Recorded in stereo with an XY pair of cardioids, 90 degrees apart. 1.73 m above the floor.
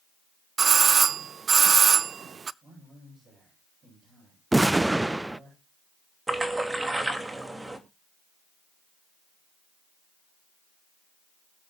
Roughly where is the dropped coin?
No dropped coin in this recording.